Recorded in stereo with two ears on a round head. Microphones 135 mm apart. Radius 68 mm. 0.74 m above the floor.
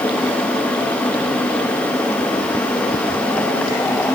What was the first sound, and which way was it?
Only background noise.